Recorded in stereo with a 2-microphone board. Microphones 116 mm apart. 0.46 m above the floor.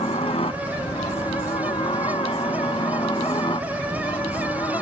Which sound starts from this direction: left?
A helicopter, at 0.0 s.